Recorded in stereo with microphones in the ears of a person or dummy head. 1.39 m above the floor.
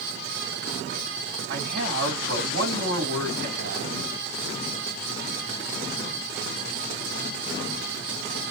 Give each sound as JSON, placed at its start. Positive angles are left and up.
{"t": 1.5, "sound": "a man speaking", "side_deg": -55, "distance_m": 2.5}